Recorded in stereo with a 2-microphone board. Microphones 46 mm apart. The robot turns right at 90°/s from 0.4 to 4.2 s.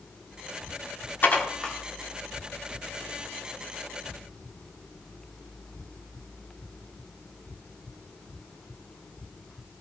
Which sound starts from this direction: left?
Dishes clattering, at 1.2 s.